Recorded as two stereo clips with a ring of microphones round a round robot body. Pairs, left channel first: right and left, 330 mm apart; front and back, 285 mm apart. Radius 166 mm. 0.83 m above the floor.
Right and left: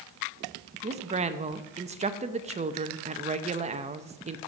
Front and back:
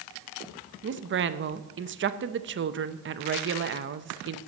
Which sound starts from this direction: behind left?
A woman speaking, at 0.8 s.